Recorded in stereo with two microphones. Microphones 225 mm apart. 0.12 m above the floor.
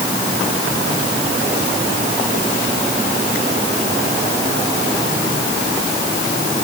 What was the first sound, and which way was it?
Only background noise.